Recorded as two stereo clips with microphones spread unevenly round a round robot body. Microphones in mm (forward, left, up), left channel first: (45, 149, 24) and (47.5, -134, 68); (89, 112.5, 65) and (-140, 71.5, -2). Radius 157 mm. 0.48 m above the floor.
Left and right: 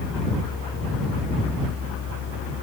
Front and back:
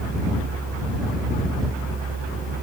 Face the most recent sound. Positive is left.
No sound to turn to.